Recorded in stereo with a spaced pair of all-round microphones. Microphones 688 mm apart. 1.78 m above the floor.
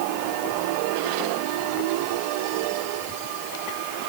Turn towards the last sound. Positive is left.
No sound to turn to.